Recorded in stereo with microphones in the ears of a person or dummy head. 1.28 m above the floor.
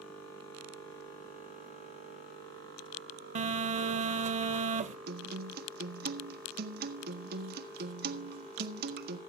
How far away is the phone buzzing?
About 0.5 m.